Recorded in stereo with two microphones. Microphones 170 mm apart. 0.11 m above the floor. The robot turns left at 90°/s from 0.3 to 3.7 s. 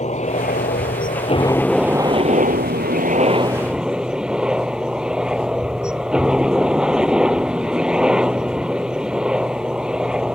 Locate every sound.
0.0 s a helicopter: 130° left; by 10.3 s 175° right